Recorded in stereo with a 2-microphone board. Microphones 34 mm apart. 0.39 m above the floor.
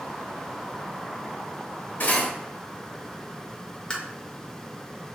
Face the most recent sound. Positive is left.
turn(degrees=25)  # may be behind; listen again after turning